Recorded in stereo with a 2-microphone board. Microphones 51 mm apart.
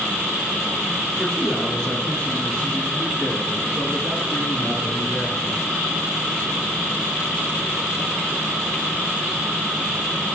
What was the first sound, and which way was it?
A man speaking, 5° left (ahead or behind).